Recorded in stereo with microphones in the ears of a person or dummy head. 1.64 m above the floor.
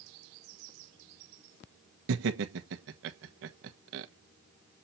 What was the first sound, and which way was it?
Laughter, 70° right (ahead or behind).